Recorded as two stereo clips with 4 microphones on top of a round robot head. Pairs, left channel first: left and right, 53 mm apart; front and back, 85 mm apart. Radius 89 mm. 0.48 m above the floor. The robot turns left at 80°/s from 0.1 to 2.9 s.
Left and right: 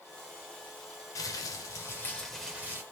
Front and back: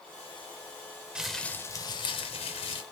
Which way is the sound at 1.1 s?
100° left.